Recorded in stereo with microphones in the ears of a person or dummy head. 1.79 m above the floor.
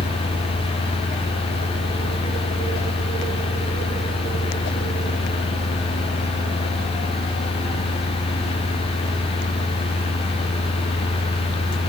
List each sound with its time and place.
0.0 s a fan: 35° left (ahead or behind), 0.8 m